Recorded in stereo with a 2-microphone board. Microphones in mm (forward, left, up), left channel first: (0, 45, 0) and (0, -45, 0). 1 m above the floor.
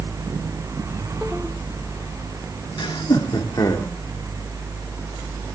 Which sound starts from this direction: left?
Laughter, at 2.8 s.